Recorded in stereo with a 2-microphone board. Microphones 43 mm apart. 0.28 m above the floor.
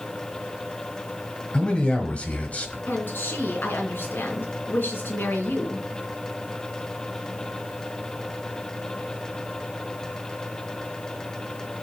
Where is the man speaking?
25° left (ahead or behind), 1.5 m; by 2.8 s 40° left (ahead or behind), 1.4 m.